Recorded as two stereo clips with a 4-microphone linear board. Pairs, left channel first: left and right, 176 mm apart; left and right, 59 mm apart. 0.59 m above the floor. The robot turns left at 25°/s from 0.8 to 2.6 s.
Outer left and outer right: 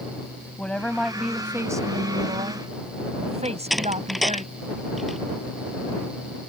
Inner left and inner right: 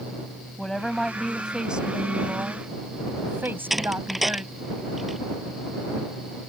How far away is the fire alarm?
I don't hear a fire alarm.